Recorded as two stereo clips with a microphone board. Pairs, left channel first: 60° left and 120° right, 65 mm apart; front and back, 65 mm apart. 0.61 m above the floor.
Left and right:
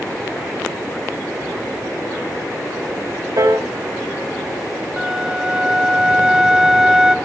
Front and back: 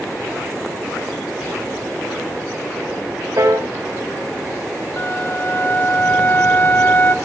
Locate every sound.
3.4 s a piano: 140° right, 3.5 m
5.0 s a flute: 40° right, 1.4 m